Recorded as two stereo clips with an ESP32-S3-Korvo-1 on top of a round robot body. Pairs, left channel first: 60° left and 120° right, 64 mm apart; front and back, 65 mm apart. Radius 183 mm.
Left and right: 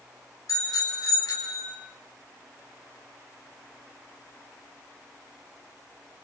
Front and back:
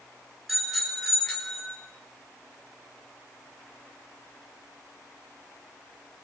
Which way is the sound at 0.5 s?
90° left.